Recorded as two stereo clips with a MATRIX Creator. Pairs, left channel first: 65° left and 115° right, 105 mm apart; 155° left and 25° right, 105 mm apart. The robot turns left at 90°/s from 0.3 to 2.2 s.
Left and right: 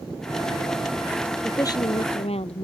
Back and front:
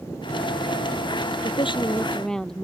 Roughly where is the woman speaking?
Behind left.